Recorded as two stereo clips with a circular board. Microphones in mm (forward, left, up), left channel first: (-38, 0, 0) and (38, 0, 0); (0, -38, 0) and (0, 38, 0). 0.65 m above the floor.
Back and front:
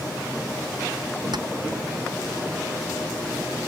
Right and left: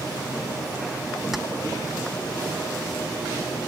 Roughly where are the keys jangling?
Ahead.